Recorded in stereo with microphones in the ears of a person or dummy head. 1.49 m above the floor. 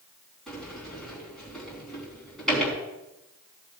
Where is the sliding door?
Centre (ahead or behind), 4 m.